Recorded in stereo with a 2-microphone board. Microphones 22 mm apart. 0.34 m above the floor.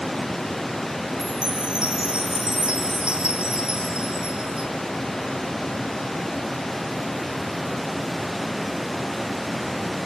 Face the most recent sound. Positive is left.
turn(degrees=-55)  # may be behind; listen again after turning